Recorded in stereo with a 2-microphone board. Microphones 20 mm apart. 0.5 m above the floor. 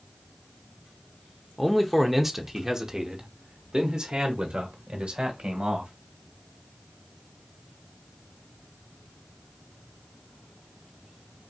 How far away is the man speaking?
About 1.0 m.